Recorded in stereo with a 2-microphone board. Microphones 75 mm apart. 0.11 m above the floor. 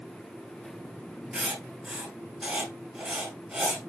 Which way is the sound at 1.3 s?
20° right (ahead or behind).